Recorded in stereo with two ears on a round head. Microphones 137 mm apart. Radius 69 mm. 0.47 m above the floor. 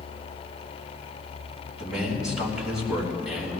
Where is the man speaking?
5° right (ahead or behind), 4 m.